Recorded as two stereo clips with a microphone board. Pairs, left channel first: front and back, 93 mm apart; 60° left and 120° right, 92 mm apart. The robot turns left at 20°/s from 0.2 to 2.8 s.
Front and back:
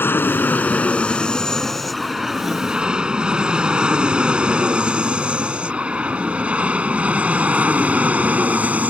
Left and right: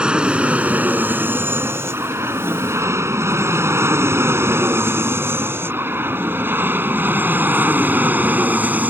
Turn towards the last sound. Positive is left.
turn(degrees=-145)